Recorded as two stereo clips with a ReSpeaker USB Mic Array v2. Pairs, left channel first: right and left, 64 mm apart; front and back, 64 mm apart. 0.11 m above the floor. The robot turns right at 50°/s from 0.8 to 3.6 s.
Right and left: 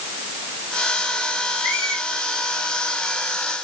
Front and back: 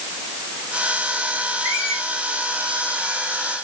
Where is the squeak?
165° left, 2.5 m; by 2.0 s 175° right, 2.5 m.